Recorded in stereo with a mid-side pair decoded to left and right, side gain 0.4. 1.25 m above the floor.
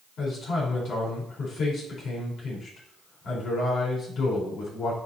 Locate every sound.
0.2 s a man speaking: 65° left, 4 m